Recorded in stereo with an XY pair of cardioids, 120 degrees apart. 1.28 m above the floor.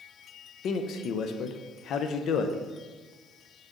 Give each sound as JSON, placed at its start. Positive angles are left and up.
{"t": 0.6, "sound": "a man speaking", "azimuth_deg": 60, "distance_m": 0.7}